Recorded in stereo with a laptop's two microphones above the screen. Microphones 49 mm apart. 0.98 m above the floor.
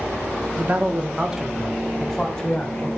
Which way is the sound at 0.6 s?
40° right (ahead or behind).